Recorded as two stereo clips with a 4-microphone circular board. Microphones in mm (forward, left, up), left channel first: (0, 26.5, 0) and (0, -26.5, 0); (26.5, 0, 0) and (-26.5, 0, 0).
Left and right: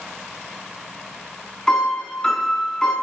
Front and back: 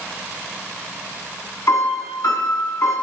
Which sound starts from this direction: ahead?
A piano, at 1.7 s.